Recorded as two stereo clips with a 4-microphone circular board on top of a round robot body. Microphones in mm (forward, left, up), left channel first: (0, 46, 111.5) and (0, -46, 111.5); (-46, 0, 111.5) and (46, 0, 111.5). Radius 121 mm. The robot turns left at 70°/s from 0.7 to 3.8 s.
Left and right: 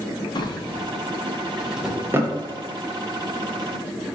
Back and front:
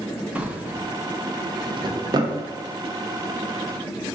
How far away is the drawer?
About 0.6 m.